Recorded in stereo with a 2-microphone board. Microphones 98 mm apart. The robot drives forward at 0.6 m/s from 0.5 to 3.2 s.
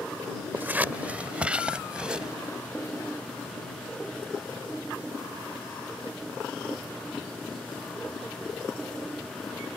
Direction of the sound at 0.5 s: 20° right (ahead or behind).